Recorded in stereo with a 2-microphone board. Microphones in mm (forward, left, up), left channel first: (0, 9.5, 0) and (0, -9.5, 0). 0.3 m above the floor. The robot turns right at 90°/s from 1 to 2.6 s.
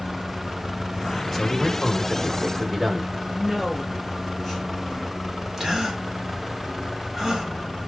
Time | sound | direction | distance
1.3 | a man speaking | 20° left (ahead or behind) | 1.4 m
3.4 | a woman speaking | 15° left (ahead or behind) | 5 m
5.6 | a gasp | 20° right (ahead or behind) | 1.8 m